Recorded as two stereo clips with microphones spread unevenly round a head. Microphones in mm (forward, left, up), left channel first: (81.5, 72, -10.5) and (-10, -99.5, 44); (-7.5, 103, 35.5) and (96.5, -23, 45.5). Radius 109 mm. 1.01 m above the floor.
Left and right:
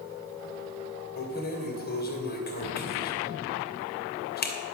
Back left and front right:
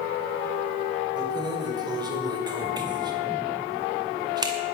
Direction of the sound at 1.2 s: 15° left.